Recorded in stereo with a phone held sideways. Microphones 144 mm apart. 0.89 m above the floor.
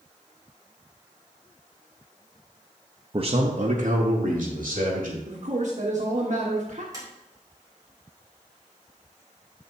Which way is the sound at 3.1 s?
35° right (ahead or behind).